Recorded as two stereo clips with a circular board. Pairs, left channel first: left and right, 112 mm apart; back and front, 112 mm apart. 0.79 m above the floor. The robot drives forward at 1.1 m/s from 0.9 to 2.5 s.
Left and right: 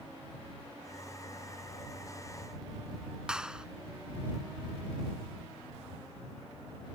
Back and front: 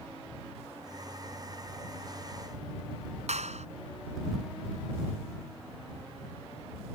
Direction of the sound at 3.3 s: 5° right.